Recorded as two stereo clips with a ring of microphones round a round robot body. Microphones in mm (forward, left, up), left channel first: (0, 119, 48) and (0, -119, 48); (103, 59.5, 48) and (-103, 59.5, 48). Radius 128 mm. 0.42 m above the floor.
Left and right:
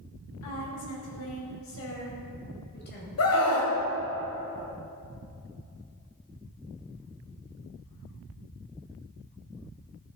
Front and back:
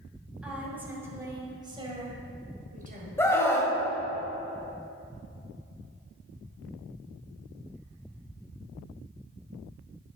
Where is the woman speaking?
95° left, 2.5 m; by 3.1 s 140° left, 2 m.